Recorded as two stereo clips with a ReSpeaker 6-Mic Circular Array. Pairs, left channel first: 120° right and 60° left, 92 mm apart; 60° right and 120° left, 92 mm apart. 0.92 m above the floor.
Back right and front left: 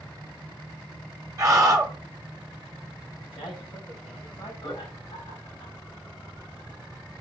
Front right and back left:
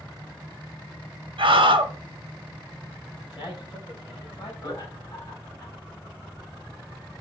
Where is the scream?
110° left, 0.8 m.